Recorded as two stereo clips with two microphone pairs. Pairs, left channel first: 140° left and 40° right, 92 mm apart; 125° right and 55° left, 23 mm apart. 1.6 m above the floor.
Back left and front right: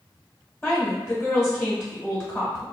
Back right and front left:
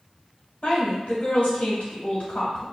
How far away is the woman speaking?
About 1.3 m.